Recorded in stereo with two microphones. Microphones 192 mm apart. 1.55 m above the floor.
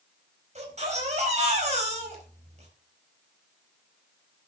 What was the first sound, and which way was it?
A baby crying, 35° right (ahead or behind).